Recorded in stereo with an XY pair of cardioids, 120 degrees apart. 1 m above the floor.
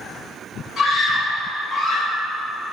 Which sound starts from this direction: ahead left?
A scream, at 0.8 s.